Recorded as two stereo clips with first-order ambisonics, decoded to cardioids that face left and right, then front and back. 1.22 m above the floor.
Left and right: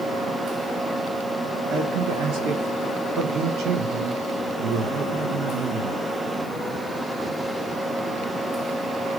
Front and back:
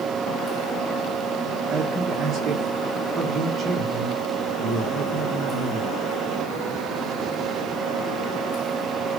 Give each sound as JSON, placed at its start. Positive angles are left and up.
{"t": 1.7, "sound": "a man speaking", "azimuth_deg": -115, "distance_m": 1.3}